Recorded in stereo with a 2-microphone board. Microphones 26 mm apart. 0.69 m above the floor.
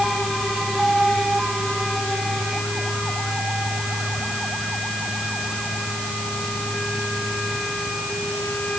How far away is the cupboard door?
I don't hear a cupboard door.